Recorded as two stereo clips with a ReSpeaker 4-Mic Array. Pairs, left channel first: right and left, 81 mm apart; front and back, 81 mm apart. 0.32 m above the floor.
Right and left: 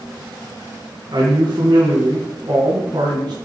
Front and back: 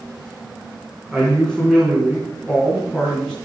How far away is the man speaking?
About 3 m.